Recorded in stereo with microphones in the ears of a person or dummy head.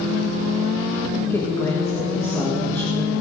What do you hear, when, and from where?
1.3 s a woman speaking: 20° left (ahead or behind), 1.8 m